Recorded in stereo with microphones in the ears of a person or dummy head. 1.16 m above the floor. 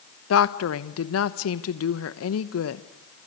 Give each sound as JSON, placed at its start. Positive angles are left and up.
{"t": 0.3, "sound": "a woman speaking", "side_deg": 70, "distance_m": 1.0}